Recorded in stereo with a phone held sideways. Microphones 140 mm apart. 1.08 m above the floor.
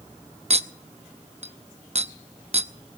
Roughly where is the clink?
Right.